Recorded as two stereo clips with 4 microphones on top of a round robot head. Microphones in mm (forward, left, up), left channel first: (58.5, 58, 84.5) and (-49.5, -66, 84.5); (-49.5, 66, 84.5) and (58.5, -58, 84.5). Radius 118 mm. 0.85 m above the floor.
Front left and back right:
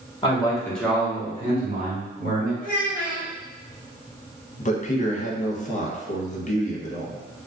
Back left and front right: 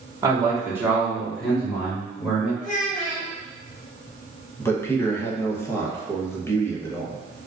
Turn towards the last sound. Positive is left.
turn(degrees=60)